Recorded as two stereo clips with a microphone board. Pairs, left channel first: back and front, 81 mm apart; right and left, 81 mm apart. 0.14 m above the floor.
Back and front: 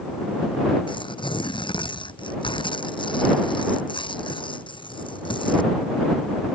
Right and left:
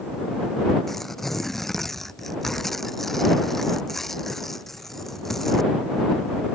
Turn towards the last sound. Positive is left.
turn(degrees=-175)